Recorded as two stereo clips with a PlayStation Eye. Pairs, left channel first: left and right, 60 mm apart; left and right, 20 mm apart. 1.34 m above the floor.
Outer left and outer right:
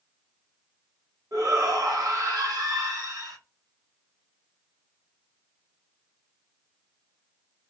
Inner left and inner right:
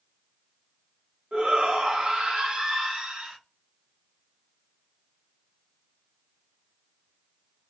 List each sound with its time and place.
1.3 s a shout: 70° right (ahead or behind), 1.3 m